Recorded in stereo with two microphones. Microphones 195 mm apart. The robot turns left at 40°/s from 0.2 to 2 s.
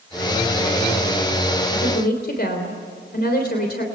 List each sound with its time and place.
1.7 s a woman speaking: 65° left (ahead or behind), 3 m; by 3.8 s 55° left (ahead or behind), 3 m